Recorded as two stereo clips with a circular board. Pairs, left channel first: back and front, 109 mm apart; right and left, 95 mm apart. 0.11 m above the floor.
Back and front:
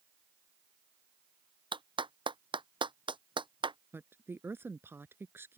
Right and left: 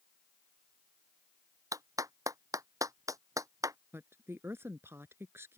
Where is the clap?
40° left.